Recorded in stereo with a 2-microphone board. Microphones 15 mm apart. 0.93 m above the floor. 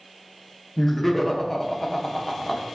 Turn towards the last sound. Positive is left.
turn(degrees=10)  # may be behind; listen again after turning